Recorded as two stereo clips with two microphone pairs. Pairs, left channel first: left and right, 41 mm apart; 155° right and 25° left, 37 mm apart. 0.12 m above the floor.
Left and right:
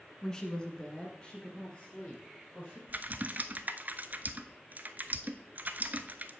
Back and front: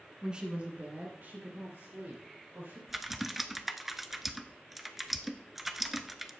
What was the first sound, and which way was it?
A woman speaking, 50° left.